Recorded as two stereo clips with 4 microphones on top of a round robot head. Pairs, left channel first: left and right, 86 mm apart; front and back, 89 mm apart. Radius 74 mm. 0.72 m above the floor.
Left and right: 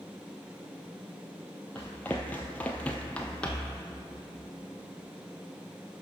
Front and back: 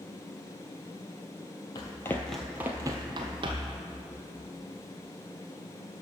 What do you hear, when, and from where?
1.8 s running footsteps: 10° left, 0.9 m; by 3.8 s 170° left, 1.4 m